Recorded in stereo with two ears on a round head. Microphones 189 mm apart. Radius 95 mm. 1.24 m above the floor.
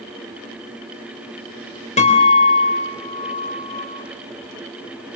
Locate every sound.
2.0 s a guitar: 40° left (ahead or behind), 4 m